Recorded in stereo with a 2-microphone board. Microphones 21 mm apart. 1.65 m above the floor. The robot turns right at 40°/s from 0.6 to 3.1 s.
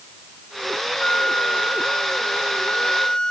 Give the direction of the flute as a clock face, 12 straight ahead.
10 o'clock.